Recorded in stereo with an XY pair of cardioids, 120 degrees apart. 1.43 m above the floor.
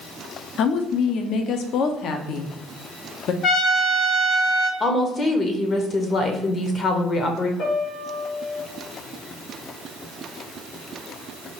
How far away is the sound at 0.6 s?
About 0.5 m.